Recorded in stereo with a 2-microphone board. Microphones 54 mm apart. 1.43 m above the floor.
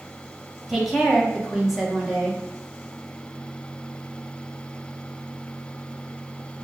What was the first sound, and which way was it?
A woman speaking, 5° right (ahead or behind).